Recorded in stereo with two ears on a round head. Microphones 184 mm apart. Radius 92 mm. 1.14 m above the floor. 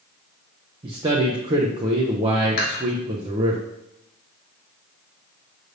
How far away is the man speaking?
About 0.5 m.